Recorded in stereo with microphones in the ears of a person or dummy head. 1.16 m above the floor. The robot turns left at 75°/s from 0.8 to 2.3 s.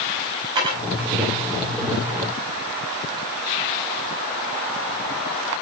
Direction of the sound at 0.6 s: 25° right (ahead or behind).